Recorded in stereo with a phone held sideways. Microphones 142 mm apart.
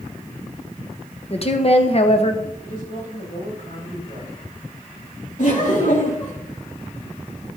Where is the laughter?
60° left (ahead or behind), 4 m.